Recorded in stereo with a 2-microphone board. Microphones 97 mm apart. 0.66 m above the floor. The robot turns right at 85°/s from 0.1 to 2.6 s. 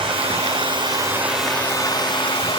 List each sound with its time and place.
0.0 s running water: 115° right, 2 m; by 2.6 s 100° left, 2 m